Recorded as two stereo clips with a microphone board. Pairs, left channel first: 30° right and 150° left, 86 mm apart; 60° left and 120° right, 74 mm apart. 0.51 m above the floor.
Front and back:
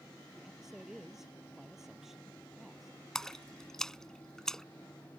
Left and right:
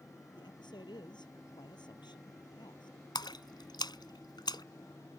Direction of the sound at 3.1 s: 55° left.